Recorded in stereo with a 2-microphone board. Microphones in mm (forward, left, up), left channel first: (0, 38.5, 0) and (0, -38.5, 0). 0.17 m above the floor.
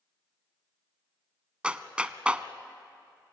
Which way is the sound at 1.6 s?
15° right (ahead or behind).